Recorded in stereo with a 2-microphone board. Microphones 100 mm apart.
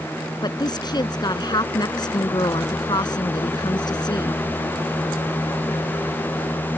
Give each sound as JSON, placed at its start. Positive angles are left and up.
{"t": 0.4, "sound": "a woman speaking", "side_deg": 45}